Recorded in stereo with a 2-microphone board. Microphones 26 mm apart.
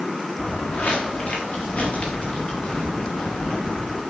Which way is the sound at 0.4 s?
70° left (ahead or behind).